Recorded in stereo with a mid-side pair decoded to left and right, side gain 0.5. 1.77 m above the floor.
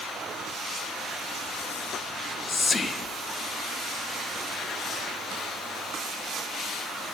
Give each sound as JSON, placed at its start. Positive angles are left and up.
{"t": 2.1, "sound": "whispering", "azimuth_deg": 25, "distance_m": 0.5}